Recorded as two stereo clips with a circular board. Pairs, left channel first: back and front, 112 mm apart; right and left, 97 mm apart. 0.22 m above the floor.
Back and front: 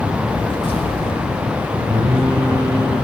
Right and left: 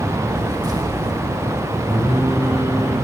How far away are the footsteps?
About 2.5 m.